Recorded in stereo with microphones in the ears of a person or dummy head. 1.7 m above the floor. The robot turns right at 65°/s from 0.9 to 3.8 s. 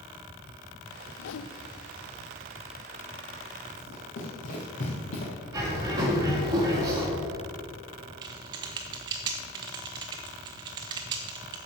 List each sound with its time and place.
1.2 s a whoosh: 75° left (ahead or behind), 0.6 m; by 1.5 s 85° left, 0.6 m
3.8 s running footsteps: 50° left (ahead or behind), 4 m; by 5.3 s 35° left (ahead or behind), 3 m
5.5 s a bird: 25° right (ahead or behind), 2.5 m
8.2 s typing on a keyboard: 20° right (ahead or behind), 0.6 m